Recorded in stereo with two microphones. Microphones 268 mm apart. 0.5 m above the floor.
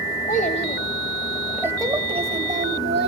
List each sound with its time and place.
0.3 s a child speaking: 30° left (ahead or behind), 1.9 m; by 3.1 s 40° right (ahead or behind), 2.5 m